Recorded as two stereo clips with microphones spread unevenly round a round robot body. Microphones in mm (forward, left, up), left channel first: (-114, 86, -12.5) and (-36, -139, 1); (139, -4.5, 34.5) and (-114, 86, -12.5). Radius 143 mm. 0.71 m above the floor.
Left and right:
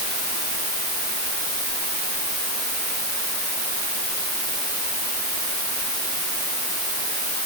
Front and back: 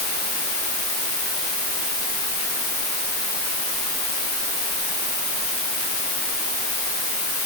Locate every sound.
Only background noise.